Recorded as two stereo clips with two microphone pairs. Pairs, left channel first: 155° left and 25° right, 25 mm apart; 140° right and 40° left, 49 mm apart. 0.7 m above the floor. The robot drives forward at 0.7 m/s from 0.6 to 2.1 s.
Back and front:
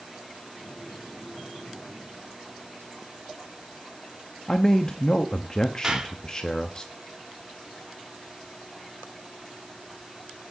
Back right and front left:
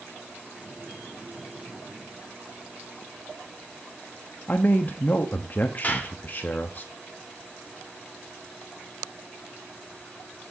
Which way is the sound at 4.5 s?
165° right.